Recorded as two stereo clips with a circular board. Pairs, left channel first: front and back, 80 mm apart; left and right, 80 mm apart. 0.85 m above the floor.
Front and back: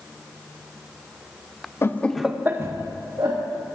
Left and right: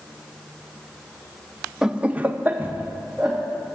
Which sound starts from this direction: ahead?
Laughter, at 1.8 s.